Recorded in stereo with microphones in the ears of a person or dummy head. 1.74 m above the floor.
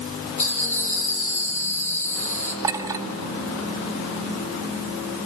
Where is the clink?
15° right (ahead or behind), 1.8 m.